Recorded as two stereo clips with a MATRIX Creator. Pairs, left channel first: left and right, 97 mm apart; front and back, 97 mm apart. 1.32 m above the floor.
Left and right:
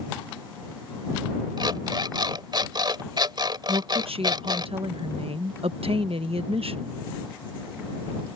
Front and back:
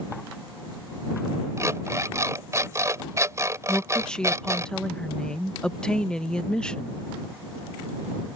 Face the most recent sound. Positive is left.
turn(degrees=-80)